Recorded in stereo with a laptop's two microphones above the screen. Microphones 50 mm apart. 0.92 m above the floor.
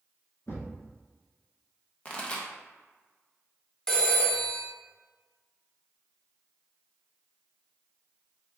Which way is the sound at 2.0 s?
25° left (ahead or behind).